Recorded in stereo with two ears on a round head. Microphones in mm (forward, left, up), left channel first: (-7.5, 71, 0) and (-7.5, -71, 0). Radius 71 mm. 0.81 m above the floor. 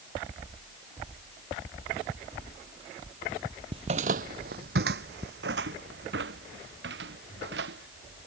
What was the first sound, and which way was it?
Footsteps, 35° right (ahead or behind).